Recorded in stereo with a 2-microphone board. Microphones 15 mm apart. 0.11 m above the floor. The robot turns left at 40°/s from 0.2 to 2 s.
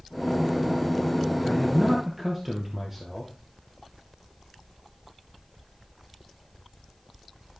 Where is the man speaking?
Centre (ahead or behind), 2.5 m; by 3.3 s 20° right (ahead or behind), 2.5 m.